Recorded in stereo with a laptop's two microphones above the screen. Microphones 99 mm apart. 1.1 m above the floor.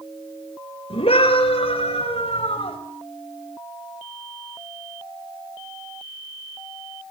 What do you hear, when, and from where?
0.9 s a scream: 75° left (ahead or behind), 4.5 m; by 2.8 s 85° left, 6 m